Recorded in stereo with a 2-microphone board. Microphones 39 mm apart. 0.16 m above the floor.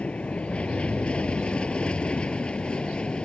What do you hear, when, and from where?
0.0 s an aircraft: 30° left (ahead or behind); by 3.3 s 25° left (ahead or behind)